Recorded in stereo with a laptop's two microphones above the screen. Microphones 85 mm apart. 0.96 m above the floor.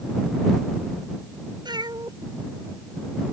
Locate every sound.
1.6 s a cat meowing: 60° right (ahead or behind); by 3.3 s 35° right (ahead or behind)